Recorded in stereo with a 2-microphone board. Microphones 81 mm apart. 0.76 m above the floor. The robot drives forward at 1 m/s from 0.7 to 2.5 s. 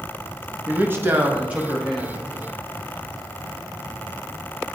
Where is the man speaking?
25° right (ahead or behind), 0.6 m; by 2.2 s 10° right (ahead or behind), 1.4 m.